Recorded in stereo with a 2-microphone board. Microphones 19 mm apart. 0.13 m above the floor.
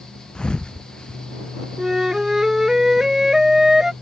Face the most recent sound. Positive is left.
turn(degrees=-25)  # may be behind; listen again after turning